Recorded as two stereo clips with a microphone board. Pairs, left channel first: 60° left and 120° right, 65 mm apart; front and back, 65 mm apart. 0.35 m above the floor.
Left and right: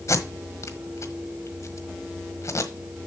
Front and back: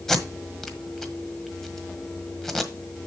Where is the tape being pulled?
80° left, 1.4 m.